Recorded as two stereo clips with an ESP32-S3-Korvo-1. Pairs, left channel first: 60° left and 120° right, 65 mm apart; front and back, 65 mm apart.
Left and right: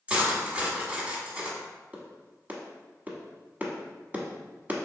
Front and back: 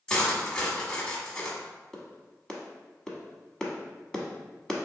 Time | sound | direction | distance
0.1 | cutlery clinking | 65° right | 1.0 m
1.9 | a clap | 75° right | 0.9 m